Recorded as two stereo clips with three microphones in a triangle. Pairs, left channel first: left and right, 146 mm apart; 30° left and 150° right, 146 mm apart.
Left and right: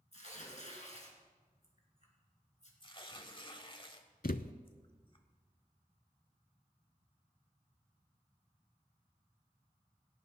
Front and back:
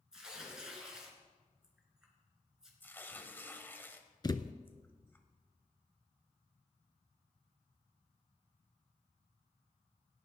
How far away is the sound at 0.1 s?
About 3 m.